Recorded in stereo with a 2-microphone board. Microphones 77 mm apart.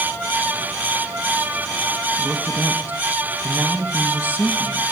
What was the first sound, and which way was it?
A man speaking, 20° right (ahead or behind).